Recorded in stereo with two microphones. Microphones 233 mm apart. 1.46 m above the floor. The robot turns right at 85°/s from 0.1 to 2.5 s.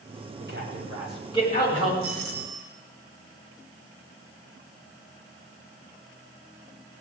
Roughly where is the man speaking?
Right.